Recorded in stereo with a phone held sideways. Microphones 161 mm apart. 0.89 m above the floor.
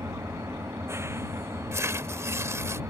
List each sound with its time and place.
0.0 s an engine running: 15° right (ahead or behind)
1.7 s tearing paper: 15° right (ahead or behind)